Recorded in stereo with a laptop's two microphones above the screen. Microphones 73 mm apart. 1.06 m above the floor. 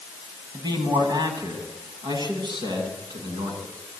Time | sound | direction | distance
0.5 | a man speaking | 70° right (ahead or behind) | 6.5 m